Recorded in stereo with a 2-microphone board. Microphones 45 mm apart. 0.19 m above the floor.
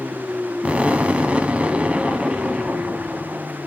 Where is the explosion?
30° right (ahead or behind), 0.9 m.